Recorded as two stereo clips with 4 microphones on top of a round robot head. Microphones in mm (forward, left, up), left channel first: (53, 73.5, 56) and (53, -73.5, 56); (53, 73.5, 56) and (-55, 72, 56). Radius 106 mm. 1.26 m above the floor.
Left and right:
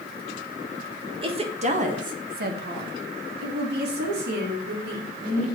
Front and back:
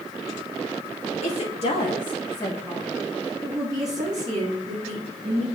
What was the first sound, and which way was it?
A woman speaking, 35° right.